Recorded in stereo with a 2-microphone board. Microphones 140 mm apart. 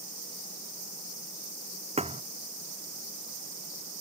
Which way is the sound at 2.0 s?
50° right (ahead or behind).